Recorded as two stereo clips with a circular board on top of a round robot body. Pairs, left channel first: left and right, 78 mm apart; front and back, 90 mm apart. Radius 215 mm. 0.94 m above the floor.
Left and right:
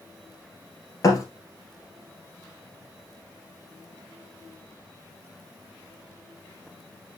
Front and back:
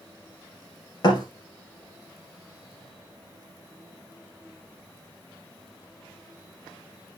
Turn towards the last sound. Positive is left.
turn(degrees=45)